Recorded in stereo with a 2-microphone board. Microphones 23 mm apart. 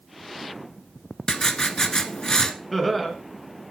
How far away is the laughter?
About 2.5 m.